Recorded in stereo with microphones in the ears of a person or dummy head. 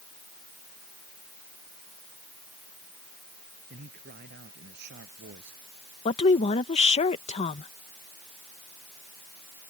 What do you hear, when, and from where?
3.7 s a man speaking: 45° right (ahead or behind); by 5.6 s 55° right (ahead or behind)
6.0 s a woman speaking: 35° left (ahead or behind)